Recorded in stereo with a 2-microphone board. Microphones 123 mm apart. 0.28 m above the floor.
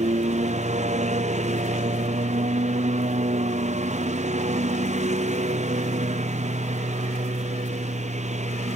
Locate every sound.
0.0 s a lawn mower: 65° right (ahead or behind)